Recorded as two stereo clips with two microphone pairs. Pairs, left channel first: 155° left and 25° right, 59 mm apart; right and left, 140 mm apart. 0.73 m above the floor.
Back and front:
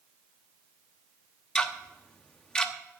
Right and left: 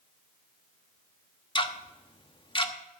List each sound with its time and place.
1.6 s ticking: 130° right, 0.9 m